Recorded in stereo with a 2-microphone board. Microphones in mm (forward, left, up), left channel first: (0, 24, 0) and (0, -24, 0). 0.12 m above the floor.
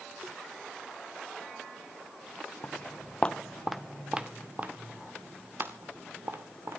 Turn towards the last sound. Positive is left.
turn(degrees=-55)  # may be behind; listen again after turning